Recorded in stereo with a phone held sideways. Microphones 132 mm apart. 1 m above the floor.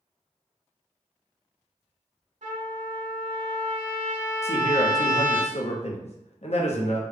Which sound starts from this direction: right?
A trumpet, at 2.4 s.